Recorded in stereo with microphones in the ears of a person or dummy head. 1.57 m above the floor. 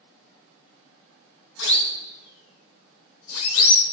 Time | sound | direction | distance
1.6 | a siren | 65° left (ahead or behind) | 2 m